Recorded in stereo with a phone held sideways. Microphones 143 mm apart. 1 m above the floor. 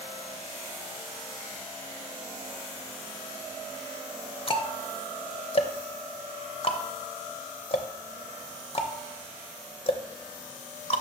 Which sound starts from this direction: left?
Ticking, at 4.5 s.